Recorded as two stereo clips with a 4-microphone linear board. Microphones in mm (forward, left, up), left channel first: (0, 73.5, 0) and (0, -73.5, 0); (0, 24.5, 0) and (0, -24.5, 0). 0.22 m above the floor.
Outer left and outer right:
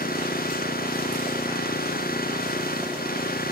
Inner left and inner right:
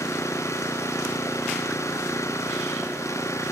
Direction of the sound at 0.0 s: 90° left.